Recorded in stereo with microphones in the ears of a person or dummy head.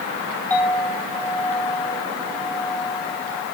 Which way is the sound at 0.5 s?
10° left (ahead or behind).